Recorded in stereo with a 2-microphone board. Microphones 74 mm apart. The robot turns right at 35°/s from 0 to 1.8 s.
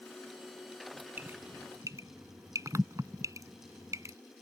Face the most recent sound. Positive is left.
turn(degrees=-45)  # may be behind; listen again after turning